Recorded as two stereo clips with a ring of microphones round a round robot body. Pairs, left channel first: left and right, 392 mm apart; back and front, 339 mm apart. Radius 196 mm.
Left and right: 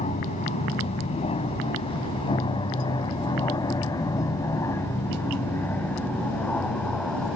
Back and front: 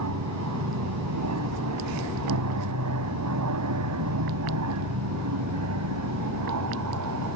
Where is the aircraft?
20° left; by 7.4 s straight ahead.